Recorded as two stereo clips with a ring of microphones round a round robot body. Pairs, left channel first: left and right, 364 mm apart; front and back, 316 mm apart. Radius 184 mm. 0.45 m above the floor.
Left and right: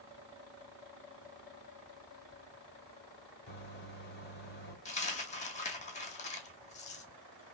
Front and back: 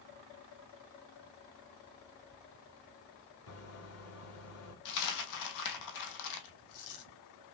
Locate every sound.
3.5 s a microwave: 30° left, 1.5 m
4.8 s a dropped coin: 20° left, 1.0 m